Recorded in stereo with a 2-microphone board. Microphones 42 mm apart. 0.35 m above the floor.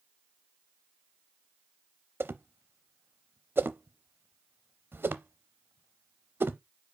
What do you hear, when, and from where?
2.2 s a whoosh: 60° right (ahead or behind), 0.6 m